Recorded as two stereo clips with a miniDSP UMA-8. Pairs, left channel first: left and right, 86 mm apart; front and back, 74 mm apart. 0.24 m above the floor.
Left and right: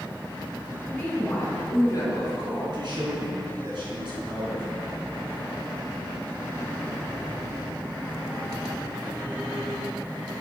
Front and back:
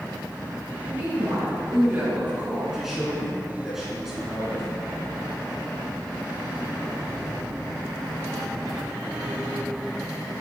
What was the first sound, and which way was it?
A woman speaking, 160° left.